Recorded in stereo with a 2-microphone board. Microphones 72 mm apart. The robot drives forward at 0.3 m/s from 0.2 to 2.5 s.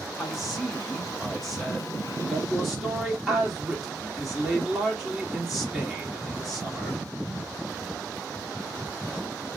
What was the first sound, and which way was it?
A man speaking, 5° right (ahead or behind).